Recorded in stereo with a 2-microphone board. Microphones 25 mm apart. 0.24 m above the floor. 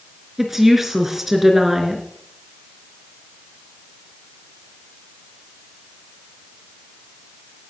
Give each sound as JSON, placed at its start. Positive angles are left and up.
{"t": 0.4, "sound": "a woman speaking", "side_deg": -15, "distance_m": 3.5}